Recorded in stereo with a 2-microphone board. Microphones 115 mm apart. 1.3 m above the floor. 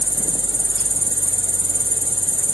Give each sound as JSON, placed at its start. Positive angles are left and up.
{"t": 0.0, "sound": "an insect", "side_deg": 30}